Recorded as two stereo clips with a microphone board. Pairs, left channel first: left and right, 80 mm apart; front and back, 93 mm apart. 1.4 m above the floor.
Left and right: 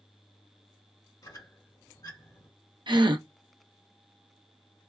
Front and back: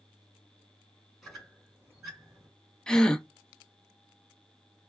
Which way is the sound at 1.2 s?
90° left.